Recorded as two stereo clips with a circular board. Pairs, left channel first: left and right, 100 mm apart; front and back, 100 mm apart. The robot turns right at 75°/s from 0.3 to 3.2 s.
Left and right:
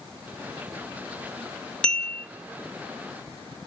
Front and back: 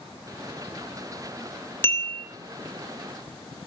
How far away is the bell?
About 0.5 m.